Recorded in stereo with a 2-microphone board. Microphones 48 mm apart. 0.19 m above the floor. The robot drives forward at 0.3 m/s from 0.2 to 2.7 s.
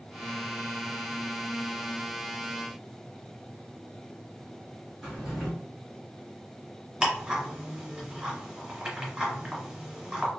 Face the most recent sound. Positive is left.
turn(degrees=-15)  # may be behind; listen again after turning